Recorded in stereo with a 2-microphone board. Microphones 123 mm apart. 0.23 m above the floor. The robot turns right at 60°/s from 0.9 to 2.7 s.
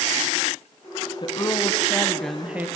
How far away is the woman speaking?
About 1.6 m.